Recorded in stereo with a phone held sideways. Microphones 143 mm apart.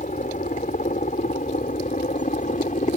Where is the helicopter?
65° left (ahead or behind).